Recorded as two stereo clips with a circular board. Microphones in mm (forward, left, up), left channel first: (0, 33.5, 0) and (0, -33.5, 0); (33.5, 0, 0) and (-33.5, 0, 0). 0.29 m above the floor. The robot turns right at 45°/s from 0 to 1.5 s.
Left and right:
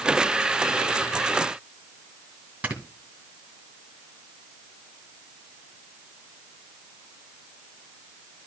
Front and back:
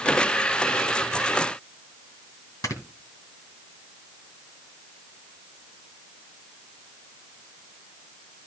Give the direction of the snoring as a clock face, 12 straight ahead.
1 o'clock.